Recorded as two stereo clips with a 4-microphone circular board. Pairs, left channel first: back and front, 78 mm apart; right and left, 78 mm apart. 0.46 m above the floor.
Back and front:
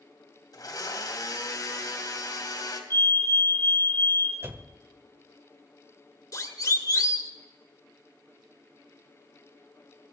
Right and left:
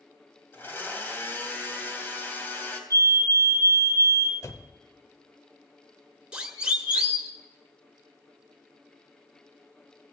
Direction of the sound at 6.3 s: 165° left.